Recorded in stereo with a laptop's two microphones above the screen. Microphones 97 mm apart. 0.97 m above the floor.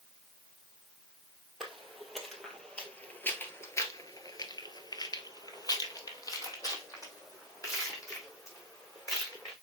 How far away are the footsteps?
About 2 m.